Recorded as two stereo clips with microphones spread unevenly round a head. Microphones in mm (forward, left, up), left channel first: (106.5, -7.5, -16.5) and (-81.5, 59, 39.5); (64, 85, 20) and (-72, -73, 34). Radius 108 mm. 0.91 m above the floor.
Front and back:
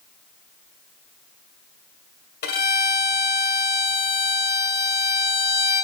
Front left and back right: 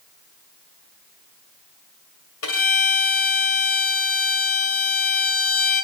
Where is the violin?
20° left, 2 m.